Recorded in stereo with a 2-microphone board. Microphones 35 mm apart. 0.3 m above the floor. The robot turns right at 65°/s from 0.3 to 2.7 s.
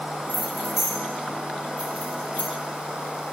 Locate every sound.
0.3 s keys jangling: 35° right (ahead or behind), 1.8 m; by 2.5 s 60° left (ahead or behind), 1.8 m